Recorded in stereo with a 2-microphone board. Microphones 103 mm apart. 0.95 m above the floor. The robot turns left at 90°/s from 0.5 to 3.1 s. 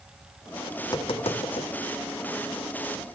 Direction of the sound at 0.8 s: 30° left (ahead or behind).